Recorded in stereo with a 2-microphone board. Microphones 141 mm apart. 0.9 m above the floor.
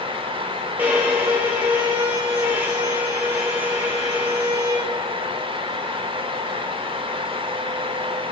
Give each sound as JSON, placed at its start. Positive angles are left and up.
{"t": 0.8, "sound": "a violin", "side_deg": -10, "distance_m": 0.9}